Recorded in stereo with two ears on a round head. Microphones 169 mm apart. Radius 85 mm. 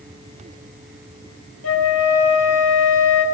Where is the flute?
80° left, 4.5 m.